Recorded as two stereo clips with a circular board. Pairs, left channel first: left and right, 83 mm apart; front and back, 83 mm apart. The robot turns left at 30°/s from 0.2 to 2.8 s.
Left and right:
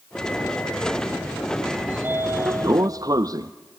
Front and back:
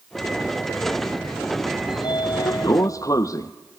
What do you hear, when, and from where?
1.9 s a sliding door: 20° right, 0.8 m; by 3.5 s 45° right, 0.8 m